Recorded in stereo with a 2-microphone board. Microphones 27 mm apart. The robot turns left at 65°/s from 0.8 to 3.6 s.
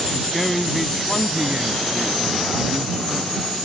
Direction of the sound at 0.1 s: 5° left.